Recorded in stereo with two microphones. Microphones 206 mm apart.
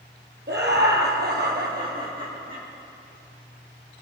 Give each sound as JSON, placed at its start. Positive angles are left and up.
{"t": 0.5, "sound": "laughter", "side_deg": -55, "distance_m": 2.0}